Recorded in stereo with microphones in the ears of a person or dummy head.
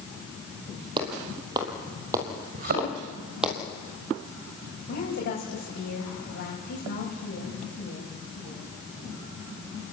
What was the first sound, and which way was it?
Footsteps, 25° right (ahead or behind).